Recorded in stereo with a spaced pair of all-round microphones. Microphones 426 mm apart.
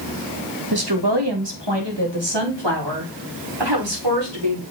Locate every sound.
0.7 s a woman speaking: 55° right (ahead or behind), 1.6 m; by 4.6 s 75° right (ahead or behind), 5 m